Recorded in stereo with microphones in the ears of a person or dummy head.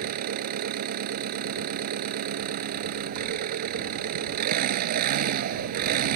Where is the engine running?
50° right (ahead or behind).